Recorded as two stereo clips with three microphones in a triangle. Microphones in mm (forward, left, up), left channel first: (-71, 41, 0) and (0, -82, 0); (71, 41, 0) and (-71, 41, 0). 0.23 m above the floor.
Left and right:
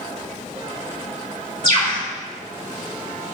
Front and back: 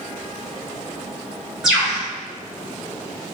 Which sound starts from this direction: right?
A bird, at 1.6 s.